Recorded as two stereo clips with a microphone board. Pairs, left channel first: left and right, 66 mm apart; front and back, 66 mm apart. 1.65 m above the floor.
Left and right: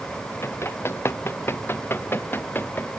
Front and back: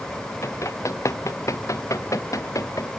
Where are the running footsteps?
40° left; by 2.9 s 30° left.